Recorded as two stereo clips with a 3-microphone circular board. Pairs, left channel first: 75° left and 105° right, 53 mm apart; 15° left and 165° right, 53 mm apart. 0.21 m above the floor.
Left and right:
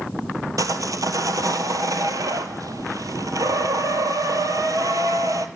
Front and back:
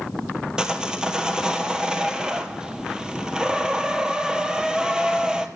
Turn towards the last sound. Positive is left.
turn(degrees=-90)